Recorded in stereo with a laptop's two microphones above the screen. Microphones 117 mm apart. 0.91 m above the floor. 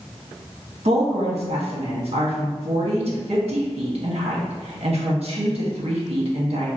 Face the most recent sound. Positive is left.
turn(degrees=-60)  # may be behind; listen again after turning